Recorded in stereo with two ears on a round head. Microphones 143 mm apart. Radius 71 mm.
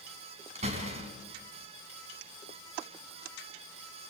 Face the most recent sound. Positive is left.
turn(degrees=-45)  # may be behind; listen again after turning